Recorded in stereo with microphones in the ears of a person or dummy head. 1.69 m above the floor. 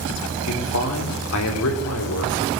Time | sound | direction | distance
0.5 | a man speaking | 90° left | 5 m